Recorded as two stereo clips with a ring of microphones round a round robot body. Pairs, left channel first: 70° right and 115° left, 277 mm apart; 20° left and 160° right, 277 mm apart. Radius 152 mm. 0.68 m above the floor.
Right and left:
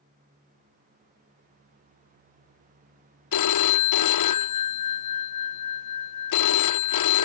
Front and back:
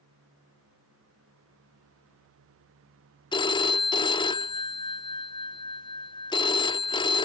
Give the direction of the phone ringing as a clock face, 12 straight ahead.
2 o'clock.